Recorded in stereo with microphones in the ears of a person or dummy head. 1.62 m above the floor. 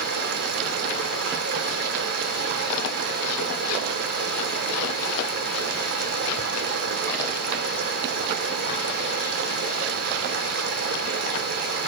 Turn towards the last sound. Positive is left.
turn(degrees=-55)  # may be behind; listen again after turning